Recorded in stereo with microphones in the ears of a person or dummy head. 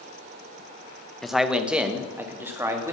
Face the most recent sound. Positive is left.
turn(degrees=-20)  # may be behind; listen again after turning